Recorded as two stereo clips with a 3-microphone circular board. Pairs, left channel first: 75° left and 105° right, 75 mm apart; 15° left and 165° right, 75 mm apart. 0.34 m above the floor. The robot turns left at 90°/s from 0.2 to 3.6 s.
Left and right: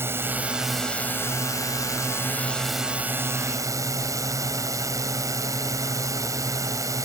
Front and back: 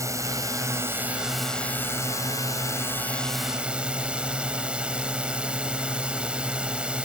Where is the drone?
145° right; by 7.0 s 95° right.